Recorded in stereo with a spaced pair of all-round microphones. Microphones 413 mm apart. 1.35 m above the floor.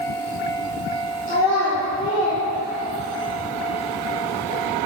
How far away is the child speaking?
About 3 m.